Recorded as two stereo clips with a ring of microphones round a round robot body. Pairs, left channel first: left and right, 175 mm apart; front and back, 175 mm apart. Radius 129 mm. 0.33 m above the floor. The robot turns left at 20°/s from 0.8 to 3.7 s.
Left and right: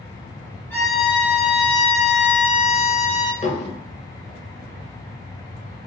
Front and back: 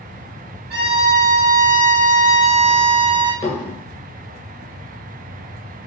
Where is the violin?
170° left, 2.0 m; by 3.3 s 120° left, 2.0 m.